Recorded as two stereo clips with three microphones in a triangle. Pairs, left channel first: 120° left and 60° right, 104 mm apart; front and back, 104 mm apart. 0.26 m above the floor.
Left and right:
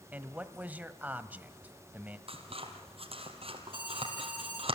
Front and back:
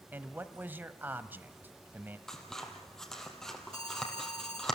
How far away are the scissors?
About 3.5 m.